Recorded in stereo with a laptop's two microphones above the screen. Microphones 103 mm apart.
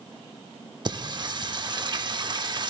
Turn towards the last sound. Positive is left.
turn(degrees=-40)  # may be behind; listen again after turning